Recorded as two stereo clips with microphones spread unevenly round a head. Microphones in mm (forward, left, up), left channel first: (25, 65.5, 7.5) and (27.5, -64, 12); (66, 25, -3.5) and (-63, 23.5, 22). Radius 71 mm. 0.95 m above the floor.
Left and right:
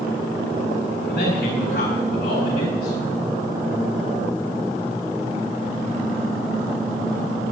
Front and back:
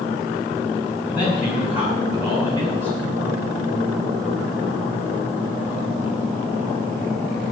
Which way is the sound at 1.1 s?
100° left.